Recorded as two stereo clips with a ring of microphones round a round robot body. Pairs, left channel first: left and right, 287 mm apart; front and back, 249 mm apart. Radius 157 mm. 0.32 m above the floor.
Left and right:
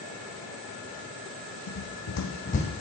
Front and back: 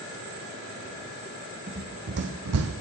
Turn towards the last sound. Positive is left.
turn(degrees=170)